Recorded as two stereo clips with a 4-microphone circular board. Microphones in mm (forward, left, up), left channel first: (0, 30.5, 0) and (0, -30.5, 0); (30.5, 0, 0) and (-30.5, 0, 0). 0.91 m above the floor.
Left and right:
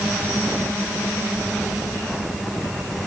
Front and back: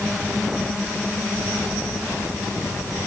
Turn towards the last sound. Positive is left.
No sound to turn to.